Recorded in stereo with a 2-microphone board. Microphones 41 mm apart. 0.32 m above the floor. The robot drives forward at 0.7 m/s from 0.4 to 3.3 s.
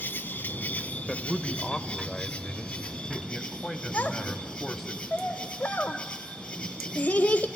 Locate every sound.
0.0 s an insect: 60° left (ahead or behind), 0.9 m; by 7.6 s 15° left (ahead or behind), 2.5 m
1.1 s a man speaking: 10° left (ahead or behind), 1.0 m; by 4.9 s 5° left (ahead or behind), 1.5 m
3.9 s a child speaking: 35° left (ahead or behind), 0.7 m